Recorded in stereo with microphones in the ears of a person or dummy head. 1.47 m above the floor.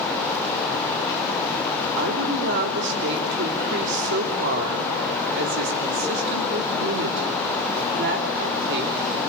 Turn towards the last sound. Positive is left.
turn(degrees=-70)  # may be behind; listen again after turning